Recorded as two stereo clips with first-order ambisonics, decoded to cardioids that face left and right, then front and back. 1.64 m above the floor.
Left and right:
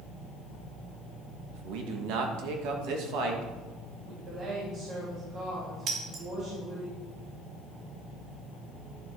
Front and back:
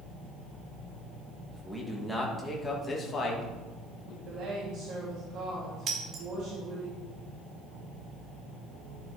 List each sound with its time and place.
1.5 s a man speaking: 95° right, 1.8 m; by 4.2 s 50° right, 2 m
4.2 s a woman speaking: 140° right, 3 m
5.9 s breaking glass: 130° right, 1.7 m